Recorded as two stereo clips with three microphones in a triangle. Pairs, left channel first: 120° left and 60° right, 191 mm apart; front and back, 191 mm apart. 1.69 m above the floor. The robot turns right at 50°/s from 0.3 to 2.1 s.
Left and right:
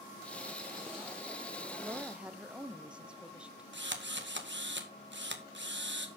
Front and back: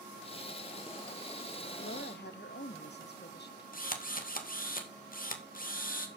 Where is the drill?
40° right, 1.9 m.